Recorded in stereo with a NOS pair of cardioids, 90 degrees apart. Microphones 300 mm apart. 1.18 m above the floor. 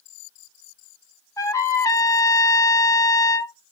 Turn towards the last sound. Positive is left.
turn(degrees=10)